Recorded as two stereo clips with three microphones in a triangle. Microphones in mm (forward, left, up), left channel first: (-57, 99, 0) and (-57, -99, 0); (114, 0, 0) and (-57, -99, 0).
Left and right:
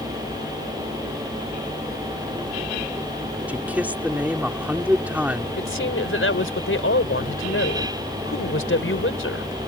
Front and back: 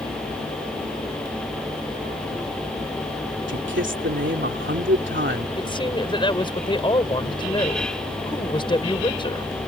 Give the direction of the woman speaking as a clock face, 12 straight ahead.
9 o'clock.